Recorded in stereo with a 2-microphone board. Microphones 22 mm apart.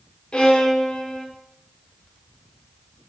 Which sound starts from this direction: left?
A violin, at 0.3 s.